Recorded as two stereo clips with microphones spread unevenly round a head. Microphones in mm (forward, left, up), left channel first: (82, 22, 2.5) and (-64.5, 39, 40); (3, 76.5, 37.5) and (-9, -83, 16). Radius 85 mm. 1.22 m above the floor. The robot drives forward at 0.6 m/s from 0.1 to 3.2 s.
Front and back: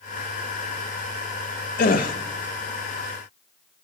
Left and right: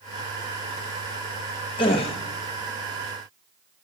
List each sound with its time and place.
1.8 s a gasp: 25° left, 1.0 m; by 2.1 s 30° left, 0.8 m